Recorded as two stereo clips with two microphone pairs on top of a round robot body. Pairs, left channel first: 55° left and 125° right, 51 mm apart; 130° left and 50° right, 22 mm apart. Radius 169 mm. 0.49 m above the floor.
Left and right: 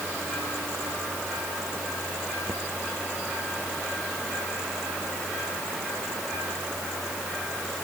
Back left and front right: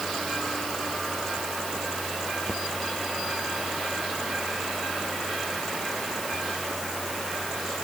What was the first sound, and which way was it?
Only background noise.